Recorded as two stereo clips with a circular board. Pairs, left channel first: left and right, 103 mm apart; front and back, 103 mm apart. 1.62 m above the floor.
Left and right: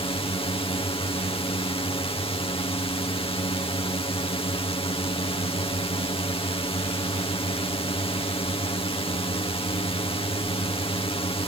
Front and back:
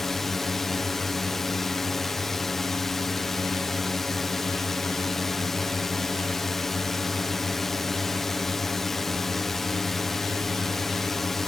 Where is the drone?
85° left.